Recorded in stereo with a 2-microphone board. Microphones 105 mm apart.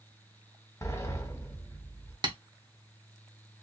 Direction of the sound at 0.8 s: 30° left (ahead or behind).